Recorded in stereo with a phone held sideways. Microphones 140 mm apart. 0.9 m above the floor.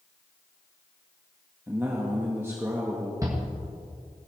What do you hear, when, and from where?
1.7 s a man speaking: 15° right (ahead or behind), 1.4 m
3.2 s a shout: 25° right (ahead or behind), 1.3 m